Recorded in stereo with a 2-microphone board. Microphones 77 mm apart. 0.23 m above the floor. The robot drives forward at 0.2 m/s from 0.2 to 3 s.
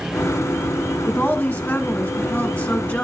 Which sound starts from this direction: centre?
A woman speaking, at 1.1 s.